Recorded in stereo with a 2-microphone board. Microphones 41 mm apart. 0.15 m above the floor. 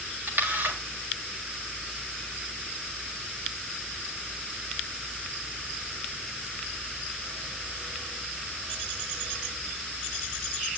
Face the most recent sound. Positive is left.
turn(degrees=-60)  # may be behind; listen again after turning